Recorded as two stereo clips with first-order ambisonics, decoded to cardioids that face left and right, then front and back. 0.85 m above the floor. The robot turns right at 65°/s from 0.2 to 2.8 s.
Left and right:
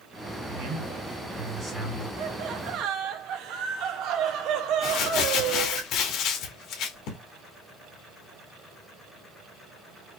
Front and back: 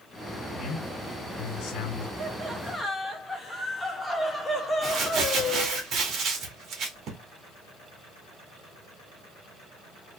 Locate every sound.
0.5 s a man speaking: 95° right, 2.5 m; by 2.1 s 10° left, 2.5 m
2.2 s laughter: 125° right, 0.8 m; by 5.8 s 80° right, 0.8 m
4.8 s crumpling: 130° left, 1.2 m